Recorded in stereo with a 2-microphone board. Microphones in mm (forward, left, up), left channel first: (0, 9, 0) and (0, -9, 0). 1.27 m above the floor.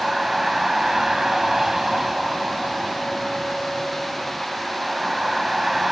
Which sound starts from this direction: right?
A vehicle, at 0.0 s.